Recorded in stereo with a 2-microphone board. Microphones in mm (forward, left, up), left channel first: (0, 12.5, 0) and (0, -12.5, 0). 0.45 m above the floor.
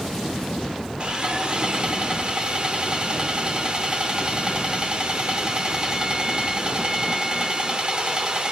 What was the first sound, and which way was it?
Sawing, 35° right (ahead or behind).